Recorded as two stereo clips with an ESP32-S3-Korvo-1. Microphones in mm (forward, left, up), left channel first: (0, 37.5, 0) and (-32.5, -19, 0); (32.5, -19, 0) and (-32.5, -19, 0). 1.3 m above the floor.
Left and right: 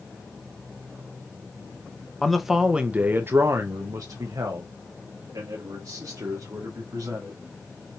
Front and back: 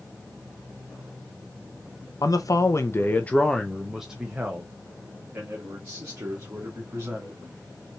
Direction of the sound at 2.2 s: 25° right.